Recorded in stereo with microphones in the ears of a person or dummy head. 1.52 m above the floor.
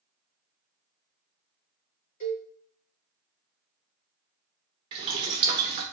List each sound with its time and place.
2.2 s a cowbell: 45° left (ahead or behind), 1.4 m
4.9 s boiling: 25° right (ahead or behind), 0.8 m